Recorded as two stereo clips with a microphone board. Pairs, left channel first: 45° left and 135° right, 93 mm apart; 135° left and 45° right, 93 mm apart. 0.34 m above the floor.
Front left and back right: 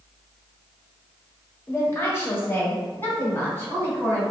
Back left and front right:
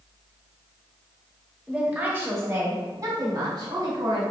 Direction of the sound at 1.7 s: 35° left.